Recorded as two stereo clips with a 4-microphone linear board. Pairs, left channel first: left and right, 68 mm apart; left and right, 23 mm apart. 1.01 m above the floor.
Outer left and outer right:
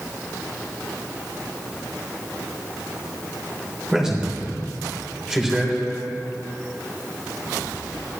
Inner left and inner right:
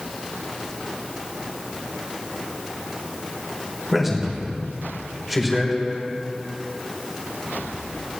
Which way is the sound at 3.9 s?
10° right (ahead or behind).